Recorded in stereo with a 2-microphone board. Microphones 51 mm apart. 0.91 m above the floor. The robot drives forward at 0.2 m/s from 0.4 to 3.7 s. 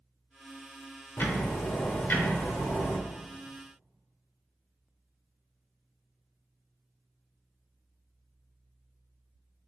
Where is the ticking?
40° left (ahead or behind), 0.7 m; by 3.0 s 35° left (ahead or behind), 0.7 m.